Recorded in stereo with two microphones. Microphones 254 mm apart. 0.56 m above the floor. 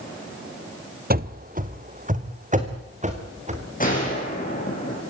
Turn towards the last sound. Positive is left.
turn(degrees=30)  # may be behind; listen again after turning